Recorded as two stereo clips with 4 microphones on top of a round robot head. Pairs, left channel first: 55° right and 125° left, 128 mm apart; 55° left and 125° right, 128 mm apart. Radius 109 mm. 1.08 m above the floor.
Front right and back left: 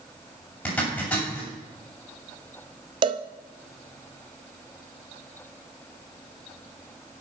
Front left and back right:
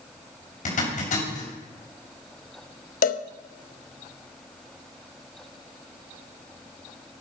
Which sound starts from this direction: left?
A cowbell, at 3.0 s.